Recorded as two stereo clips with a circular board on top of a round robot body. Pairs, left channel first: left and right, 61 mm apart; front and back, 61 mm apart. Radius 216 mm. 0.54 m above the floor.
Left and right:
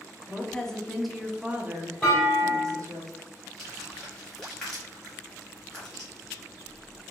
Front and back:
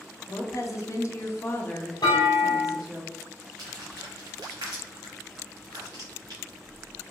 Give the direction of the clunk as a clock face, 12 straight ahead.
12 o'clock.